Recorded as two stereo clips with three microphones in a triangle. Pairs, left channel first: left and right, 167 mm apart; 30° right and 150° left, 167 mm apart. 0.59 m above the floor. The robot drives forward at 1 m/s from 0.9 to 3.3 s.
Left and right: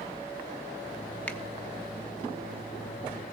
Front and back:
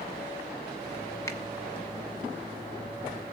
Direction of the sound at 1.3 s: 20° left.